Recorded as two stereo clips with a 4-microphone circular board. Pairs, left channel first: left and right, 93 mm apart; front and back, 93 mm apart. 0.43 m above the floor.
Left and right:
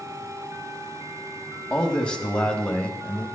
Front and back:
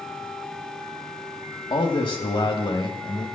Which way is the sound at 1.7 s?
10° left.